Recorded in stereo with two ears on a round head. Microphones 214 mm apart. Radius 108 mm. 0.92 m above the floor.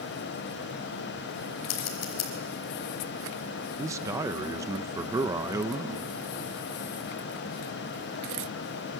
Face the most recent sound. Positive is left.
turn(degrees=-15)  # may be behind; listen again after turning